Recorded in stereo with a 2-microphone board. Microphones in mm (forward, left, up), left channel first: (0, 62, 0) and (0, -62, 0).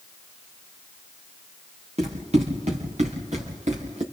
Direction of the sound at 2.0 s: 60° right (ahead or behind).